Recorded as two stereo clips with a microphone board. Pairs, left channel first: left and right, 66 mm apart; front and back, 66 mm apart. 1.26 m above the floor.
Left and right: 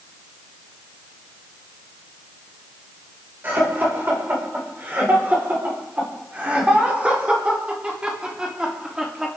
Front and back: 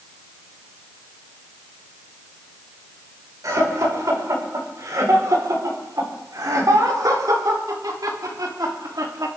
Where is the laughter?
150° right, 6 m; by 9.3 s 170° right, 3.5 m.